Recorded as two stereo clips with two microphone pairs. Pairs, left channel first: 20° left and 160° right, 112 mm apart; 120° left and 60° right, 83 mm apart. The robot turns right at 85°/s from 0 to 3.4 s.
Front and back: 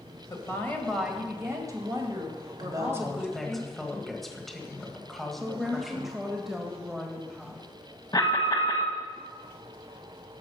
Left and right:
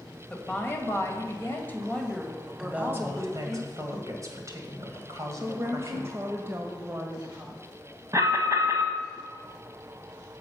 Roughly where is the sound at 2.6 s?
Behind right.